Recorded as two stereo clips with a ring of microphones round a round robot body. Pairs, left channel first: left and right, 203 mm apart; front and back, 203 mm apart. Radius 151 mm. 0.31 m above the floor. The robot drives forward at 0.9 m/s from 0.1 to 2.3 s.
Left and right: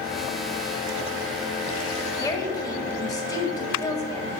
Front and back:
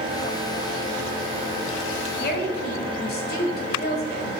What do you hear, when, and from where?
2.2 s a woman speaking: 20° left, 1.9 m